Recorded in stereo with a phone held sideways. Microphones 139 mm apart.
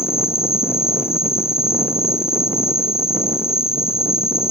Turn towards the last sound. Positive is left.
turn(degrees=45)  # may be behind; listen again after turning